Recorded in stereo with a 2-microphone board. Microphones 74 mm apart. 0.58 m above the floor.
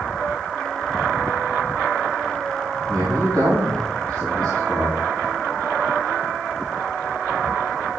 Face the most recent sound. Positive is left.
turn(degrees=-70)  # may be behind; listen again after turning